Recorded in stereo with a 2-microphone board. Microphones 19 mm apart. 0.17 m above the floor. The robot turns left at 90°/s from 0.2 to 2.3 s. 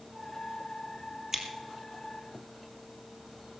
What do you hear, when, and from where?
1.3 s scissors: 20° right (ahead or behind), 1.9 m; by 1.5 s 30° right (ahead or behind), 1.9 m